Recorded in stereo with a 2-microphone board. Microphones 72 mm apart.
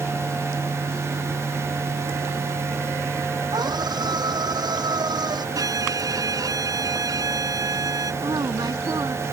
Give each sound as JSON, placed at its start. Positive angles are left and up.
{"t": 3.5, "sound": "a scream", "side_deg": -80}
{"t": 5.5, "sound": "a violin", "side_deg": -65}
{"t": 8.2, "sound": "a woman speaking", "side_deg": -75}